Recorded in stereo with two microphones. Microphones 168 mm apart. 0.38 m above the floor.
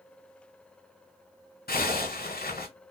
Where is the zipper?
70° left (ahead or behind), 1.7 m.